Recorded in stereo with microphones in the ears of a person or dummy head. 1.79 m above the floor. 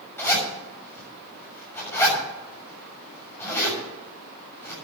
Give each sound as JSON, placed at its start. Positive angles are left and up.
{"t": 0.2, "sound": "a zipper", "side_deg": 15, "distance_m": 7.0}